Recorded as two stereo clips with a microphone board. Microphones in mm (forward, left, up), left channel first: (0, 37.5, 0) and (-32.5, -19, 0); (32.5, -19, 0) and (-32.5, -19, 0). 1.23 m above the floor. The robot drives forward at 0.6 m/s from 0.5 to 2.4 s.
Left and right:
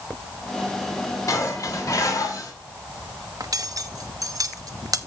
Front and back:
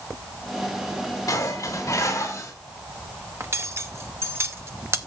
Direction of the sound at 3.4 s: 135° right.